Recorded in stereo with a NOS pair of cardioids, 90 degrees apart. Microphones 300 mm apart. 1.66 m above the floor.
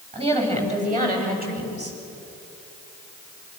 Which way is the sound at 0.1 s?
20° right.